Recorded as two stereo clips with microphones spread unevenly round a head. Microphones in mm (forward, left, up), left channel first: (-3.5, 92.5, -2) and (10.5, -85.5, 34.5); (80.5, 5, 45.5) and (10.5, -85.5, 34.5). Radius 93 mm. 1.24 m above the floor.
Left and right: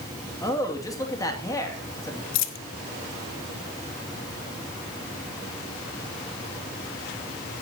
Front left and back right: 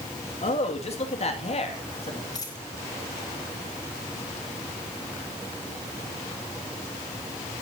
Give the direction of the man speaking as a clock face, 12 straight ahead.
11 o'clock.